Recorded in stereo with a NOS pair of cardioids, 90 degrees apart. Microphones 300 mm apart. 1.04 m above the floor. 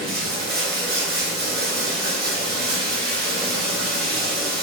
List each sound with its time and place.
0.0 s running water: 35° right, 1.5 m